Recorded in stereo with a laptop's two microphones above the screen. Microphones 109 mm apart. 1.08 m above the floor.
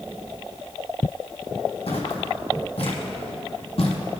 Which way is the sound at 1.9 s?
65° left (ahead or behind).